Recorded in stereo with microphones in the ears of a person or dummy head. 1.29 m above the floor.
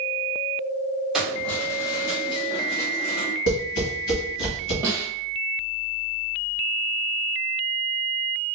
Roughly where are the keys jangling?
Centre.